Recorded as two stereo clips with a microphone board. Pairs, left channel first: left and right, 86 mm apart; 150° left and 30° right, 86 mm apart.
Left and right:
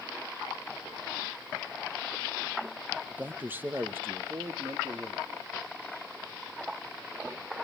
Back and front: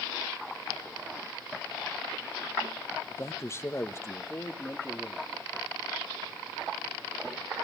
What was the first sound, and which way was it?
A man speaking, 160° right.